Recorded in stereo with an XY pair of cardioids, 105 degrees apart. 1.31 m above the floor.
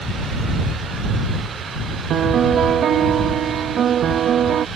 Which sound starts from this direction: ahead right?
A piano, at 2.1 s.